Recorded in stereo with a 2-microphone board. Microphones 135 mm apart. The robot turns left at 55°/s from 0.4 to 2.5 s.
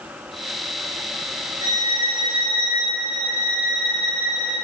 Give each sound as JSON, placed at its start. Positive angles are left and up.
{"t": 1.6, "sound": "a violin", "azimuth_deg": -25, "distance_m": 1.4}